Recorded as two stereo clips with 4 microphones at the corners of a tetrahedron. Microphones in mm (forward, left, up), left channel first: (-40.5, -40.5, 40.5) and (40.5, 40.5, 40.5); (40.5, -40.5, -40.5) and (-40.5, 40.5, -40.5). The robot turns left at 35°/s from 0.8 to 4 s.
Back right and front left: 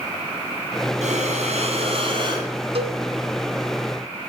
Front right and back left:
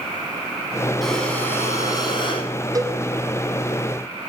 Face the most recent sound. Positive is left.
turn(degrees=35)